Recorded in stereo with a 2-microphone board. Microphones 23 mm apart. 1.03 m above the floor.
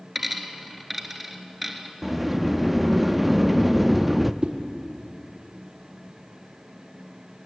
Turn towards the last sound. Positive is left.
turn(degrees=-45)  # may be behind; listen again after turning